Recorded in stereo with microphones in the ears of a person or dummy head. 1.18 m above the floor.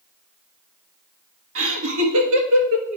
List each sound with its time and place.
1.6 s laughter: 85° right, 1.4 m